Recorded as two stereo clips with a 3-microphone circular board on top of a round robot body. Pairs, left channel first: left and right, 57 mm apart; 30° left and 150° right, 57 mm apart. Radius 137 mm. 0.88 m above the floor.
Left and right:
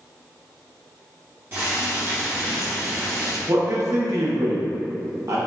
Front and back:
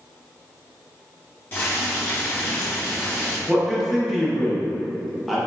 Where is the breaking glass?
No breaking glass in this recording.